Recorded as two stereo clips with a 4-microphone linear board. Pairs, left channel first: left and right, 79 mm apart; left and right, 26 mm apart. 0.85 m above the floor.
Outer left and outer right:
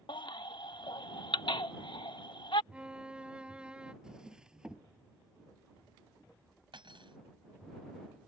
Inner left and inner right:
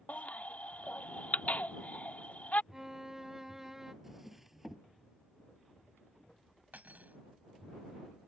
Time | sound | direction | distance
0.1 | a baby crying | 70° left (ahead or behind) | ?
2.7 | a violin | 15° right (ahead or behind) | ?
4.0 | a drawer | 10° right (ahead or behind) | ?
6.7 | cutlery clinking | 90° right | ?